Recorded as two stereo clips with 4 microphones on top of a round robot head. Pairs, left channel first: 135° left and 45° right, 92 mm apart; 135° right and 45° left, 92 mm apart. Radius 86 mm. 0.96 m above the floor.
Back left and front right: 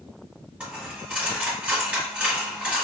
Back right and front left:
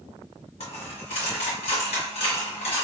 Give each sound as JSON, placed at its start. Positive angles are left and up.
{"t": 0.6, "sound": "a dropped coin", "azimuth_deg": -125, "distance_m": 1.5}